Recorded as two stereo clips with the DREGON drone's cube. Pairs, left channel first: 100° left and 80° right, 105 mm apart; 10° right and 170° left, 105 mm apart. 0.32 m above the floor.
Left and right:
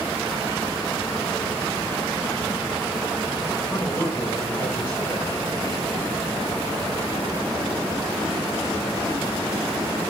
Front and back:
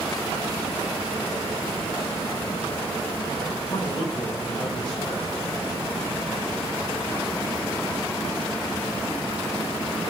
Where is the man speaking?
35° left, 8 m.